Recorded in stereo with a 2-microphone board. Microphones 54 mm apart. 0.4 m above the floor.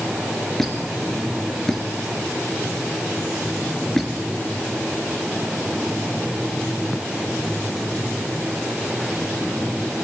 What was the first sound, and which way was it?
A squeak, 5° left (ahead or behind).